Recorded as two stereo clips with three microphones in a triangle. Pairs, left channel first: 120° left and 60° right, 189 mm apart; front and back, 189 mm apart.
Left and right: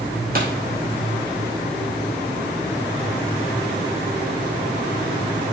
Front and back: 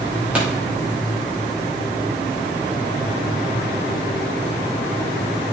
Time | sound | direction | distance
0.3 | a pop | 95° right | 2.5 m